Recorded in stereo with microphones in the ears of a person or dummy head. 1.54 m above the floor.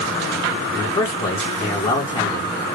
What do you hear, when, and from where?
0.7 s a man speaking: 20° left (ahead or behind), 1.9 m